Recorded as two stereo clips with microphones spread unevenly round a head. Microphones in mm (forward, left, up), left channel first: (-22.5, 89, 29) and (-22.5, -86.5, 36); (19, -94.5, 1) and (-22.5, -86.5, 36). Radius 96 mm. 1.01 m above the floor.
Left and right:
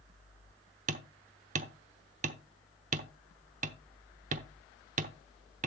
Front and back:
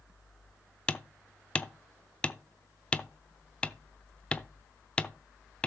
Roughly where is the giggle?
No giggle in this recording.